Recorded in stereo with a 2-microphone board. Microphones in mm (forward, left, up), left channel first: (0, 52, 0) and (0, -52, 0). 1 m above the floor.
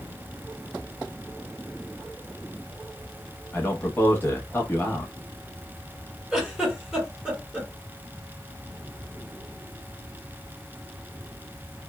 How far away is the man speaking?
About 1.0 m.